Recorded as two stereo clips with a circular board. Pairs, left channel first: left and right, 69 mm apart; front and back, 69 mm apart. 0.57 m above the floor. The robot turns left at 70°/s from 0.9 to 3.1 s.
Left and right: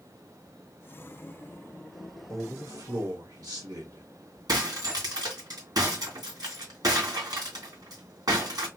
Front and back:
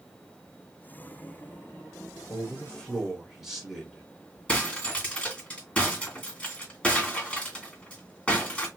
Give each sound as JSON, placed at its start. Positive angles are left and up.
{"t": 2.3, "sound": "a man speaking", "azimuth_deg": -40, "distance_m": 1.9}
{"t": 4.5, "sound": "breaking glass", "azimuth_deg": -75, "distance_m": 3.0}